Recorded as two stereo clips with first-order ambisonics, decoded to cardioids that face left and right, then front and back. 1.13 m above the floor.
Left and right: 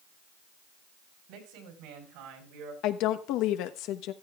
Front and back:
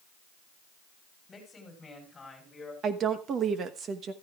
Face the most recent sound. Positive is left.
turn(degrees=120)